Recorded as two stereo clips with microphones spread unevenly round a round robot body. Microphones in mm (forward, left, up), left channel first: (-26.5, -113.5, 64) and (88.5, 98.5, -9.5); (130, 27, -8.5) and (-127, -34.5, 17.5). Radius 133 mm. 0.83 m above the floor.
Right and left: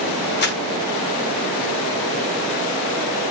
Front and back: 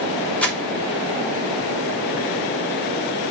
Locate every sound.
0.4 s crumpling: 65° right, 1.1 m